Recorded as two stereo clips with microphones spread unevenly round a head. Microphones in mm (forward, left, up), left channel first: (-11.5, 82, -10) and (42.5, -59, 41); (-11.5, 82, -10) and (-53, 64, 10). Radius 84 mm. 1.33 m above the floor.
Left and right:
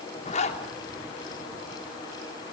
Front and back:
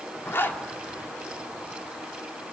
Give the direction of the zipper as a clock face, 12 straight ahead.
10 o'clock.